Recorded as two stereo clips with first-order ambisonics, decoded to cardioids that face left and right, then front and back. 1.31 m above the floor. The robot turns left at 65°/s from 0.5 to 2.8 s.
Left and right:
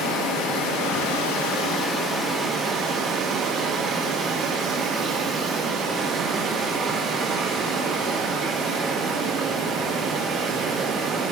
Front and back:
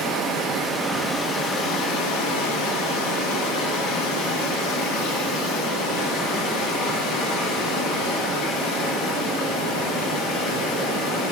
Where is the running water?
115° left, 1.3 m; by 11.3 s 35° right, 1.3 m.